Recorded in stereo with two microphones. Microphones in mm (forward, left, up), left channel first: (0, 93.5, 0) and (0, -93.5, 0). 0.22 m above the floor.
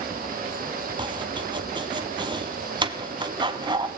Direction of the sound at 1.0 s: 25° right (ahead or behind).